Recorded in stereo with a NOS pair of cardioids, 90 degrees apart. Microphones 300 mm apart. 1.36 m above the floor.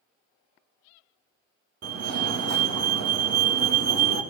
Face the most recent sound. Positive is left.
turn(degrees=-55)